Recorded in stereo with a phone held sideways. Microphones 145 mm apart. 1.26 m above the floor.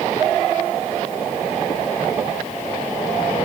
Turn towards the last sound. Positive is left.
No sound to turn to.